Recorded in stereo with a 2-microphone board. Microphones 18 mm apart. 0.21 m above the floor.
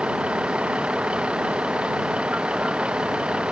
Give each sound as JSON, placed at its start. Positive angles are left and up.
{"t": 0.0, "sound": "a vehicle", "side_deg": -75}